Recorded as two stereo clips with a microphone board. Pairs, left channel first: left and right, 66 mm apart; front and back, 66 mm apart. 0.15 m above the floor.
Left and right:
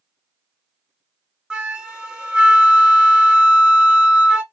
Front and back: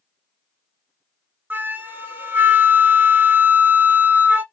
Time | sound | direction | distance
1.5 | a flute | 150° right | 0.5 m